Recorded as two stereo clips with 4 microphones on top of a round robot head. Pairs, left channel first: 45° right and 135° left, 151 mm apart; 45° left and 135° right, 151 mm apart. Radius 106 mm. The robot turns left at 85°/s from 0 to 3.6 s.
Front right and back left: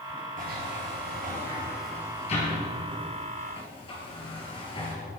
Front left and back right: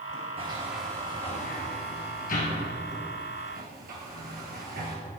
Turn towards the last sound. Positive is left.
turn(degrees=-100)